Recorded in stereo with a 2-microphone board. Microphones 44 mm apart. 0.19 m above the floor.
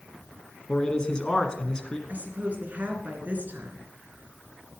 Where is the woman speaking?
45° right (ahead or behind), 2.5 m.